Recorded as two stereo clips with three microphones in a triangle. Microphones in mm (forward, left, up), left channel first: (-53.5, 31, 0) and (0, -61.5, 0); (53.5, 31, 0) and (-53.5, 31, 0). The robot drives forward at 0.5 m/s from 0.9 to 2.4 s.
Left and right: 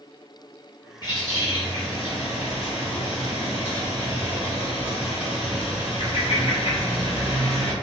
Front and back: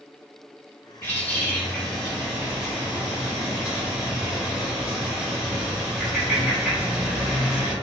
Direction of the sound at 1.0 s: 70° left.